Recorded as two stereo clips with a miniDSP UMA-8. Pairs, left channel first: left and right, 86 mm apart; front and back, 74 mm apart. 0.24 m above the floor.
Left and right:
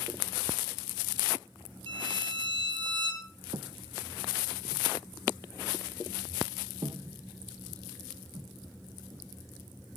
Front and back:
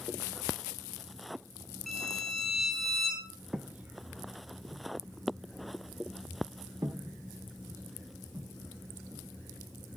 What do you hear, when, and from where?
1.9 s a violin: 95° right, 5 m
3.5 s footsteps: 105° right, 1.0 m; by 9.2 s 135° right, 5 m